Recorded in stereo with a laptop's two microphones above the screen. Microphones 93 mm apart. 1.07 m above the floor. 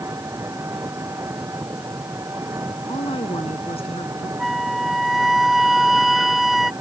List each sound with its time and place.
0.0 s an engine running: 30° right (ahead or behind)
2.9 s a woman speaking: 85° left
4.4 s a flute: centre (ahead or behind)